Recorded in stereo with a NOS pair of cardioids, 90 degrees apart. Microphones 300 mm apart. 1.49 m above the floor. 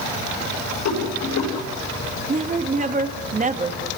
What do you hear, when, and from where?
0.8 s a rattle: 70° left, 7 m
2.3 s a woman speaking: 25° right, 3 m